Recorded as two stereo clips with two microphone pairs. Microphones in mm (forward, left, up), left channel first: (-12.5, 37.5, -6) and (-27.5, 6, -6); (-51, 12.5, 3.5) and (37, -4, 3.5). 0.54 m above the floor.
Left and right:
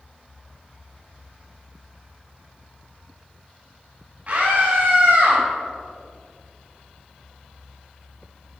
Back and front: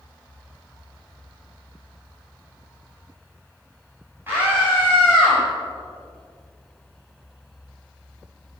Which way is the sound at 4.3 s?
75° right.